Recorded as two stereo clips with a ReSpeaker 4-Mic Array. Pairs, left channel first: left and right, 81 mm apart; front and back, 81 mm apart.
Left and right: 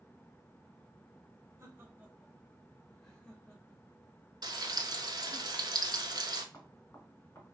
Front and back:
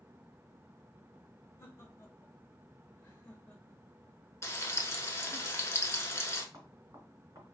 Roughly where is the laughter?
Ahead right.